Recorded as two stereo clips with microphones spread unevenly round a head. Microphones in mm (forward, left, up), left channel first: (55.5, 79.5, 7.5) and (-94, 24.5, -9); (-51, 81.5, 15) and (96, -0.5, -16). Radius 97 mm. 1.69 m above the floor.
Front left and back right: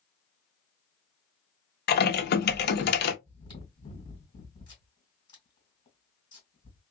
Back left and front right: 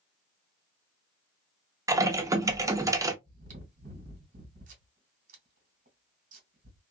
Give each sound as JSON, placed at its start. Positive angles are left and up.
{"t": 1.9, "sound": "typing on a keyboard", "azimuth_deg": 45, "distance_m": 0.7}
{"t": 3.2, "sound": "chewing", "azimuth_deg": -15, "distance_m": 1.8}